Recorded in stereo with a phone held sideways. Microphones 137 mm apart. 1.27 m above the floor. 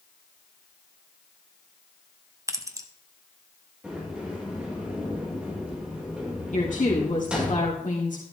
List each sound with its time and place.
2.5 s keys jangling: 25° right (ahead or behind), 0.9 m
3.8 s a sliding door: 5° right (ahead or behind), 5 m
6.5 s a woman speaking: 70° left (ahead or behind), 2.5 m